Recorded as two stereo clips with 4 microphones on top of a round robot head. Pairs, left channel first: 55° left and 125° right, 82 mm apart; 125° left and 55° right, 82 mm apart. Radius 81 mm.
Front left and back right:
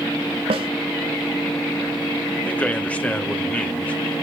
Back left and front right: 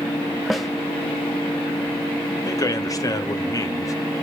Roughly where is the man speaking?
Behind left.